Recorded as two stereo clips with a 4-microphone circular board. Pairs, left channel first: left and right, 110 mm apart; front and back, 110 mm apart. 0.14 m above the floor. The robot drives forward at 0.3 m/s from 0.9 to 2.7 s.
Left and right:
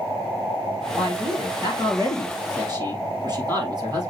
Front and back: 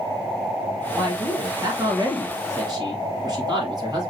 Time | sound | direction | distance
0.9 | a man speaking | 120° right | 2.5 m